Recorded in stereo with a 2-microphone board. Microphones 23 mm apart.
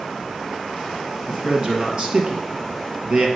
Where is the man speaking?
35° right (ahead or behind), 1.8 m.